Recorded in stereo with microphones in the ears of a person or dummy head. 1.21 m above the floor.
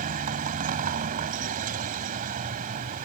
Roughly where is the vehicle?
Right.